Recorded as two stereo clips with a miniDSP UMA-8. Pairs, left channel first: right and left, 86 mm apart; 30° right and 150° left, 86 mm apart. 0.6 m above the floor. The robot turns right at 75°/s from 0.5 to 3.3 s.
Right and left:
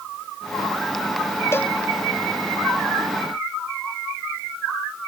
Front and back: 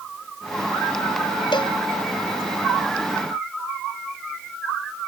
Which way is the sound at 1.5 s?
35° right.